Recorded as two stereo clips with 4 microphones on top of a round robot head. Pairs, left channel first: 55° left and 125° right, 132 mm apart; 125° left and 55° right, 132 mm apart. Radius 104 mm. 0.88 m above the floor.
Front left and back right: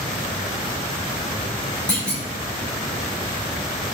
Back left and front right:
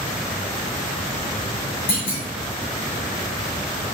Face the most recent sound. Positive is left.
turn(degrees=135)